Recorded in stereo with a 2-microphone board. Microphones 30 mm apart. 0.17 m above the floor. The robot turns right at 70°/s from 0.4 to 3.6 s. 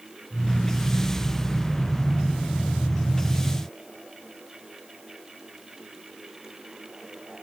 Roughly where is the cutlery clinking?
No cutlery clinking in this recording.